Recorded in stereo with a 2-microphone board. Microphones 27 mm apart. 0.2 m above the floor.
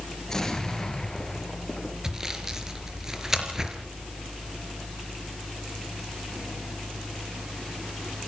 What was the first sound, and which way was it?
An explosion, 20° left (ahead or behind).